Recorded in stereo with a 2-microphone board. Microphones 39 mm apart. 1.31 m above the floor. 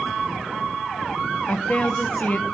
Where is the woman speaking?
40° left (ahead or behind), 0.8 m.